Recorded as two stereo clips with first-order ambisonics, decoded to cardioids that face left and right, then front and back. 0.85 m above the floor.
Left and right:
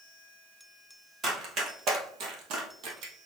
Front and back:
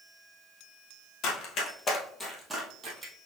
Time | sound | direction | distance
1.2 | running footsteps | 30° right | 1.4 m